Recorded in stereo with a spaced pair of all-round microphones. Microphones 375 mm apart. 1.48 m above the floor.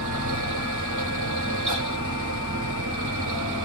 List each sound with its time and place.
0.0 s a fan: 45° right (ahead or behind), 1.2 m